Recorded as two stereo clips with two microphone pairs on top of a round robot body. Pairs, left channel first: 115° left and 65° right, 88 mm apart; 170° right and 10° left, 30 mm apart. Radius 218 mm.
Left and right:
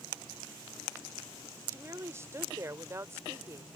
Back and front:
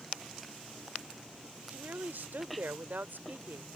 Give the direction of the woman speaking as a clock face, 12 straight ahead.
12 o'clock.